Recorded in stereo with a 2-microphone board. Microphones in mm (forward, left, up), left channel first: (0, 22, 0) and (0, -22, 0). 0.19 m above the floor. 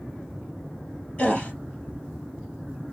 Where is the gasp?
30° left (ahead or behind), 2.5 m.